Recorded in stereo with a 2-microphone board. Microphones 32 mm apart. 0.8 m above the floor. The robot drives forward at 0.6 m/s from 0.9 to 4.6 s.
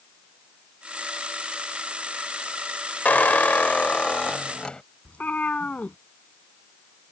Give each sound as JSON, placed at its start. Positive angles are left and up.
{"t": 3.0, "sound": "a squeak", "side_deg": 65}
{"t": 5.0, "sound": "a cat meowing", "side_deg": 55}